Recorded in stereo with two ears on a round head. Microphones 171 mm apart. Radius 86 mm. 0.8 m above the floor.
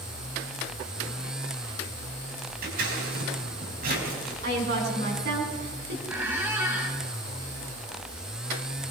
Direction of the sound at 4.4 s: 55° right (ahead or behind).